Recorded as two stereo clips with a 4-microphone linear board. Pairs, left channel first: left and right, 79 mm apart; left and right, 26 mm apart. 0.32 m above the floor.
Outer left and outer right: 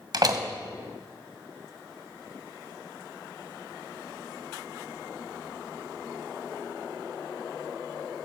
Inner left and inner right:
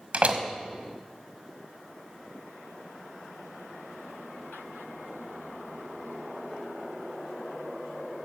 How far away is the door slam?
About 1.2 m.